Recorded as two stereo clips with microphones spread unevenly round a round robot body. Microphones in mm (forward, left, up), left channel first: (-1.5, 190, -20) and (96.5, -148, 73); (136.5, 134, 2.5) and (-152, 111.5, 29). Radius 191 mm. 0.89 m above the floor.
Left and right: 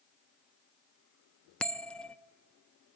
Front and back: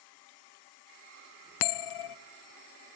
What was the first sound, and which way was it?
A bell, 15° left.